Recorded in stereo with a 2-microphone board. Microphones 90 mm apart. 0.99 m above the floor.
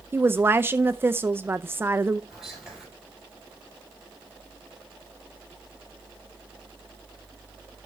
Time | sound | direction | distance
0.1 | a woman speaking | 25° right (ahead or behind) | 0.5 m
2.3 | whispering | 5° right (ahead or behind) | 5.5 m